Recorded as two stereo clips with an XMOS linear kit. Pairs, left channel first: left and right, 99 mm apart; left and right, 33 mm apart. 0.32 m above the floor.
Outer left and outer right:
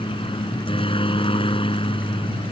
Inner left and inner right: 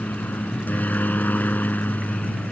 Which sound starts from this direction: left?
A helicopter, at 0.0 s.